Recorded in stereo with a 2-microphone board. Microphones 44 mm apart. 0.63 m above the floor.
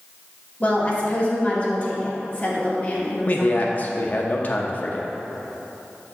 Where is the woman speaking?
30° left (ahead or behind), 1.7 m.